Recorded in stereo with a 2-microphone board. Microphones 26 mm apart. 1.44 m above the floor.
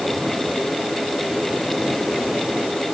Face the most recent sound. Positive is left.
No sound to turn to.